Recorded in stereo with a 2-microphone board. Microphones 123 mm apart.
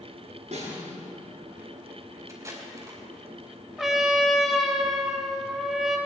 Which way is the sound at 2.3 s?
25° right (ahead or behind).